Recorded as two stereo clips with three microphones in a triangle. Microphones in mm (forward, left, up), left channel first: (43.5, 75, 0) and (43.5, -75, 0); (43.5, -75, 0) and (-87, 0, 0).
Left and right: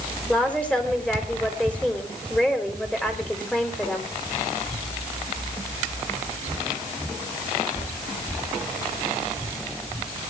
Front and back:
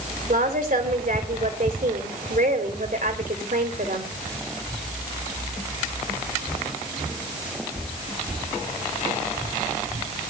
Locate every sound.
0.3 s a woman speaking: 170° left, 3.5 m